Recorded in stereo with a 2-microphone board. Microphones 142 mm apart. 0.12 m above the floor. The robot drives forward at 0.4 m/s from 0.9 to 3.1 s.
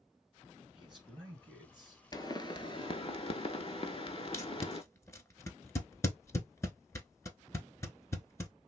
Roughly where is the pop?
Left.